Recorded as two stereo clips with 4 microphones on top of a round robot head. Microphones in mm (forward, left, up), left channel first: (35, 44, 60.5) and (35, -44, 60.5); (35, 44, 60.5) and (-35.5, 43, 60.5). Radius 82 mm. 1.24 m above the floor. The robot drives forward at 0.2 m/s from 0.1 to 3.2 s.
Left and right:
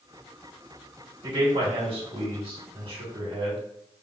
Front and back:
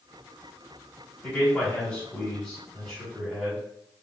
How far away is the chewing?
I don't hear chewing.